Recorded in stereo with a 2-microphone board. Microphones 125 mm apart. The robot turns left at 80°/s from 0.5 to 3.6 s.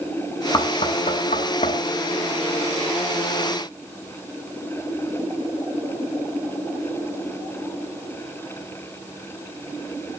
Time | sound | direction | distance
0.5 | knocking | 30° left (ahead or behind) | 3.5 m